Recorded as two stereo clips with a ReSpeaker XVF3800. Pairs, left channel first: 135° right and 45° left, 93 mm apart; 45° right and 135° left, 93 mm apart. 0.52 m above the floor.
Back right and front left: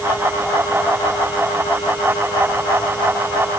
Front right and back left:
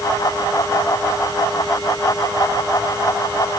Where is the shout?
I don't hear a shout.